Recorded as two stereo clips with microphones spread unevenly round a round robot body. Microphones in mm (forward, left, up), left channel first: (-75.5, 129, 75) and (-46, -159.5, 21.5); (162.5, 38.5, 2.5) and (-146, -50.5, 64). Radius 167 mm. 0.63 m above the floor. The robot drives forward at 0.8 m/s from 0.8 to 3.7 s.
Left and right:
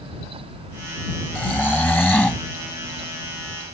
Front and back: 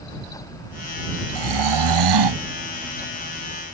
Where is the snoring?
Straight behind.